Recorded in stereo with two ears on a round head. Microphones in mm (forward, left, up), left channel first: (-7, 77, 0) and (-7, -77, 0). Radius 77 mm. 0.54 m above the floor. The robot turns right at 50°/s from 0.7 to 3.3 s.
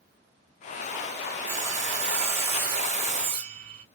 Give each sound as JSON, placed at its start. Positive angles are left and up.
{"t": 1.5, "sound": "sawing", "azimuth_deg": -140, "distance_m": 2.0}